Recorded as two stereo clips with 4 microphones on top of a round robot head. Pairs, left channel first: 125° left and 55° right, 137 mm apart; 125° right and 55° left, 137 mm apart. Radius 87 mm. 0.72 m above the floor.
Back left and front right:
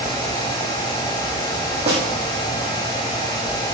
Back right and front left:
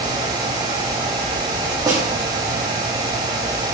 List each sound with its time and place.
1.9 s a snare drum: 5° right, 6 m